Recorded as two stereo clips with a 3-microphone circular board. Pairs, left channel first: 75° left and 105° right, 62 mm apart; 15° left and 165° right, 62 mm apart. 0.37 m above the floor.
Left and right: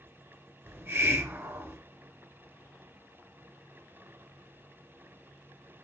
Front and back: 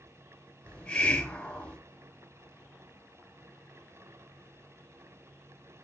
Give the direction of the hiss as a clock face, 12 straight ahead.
2 o'clock.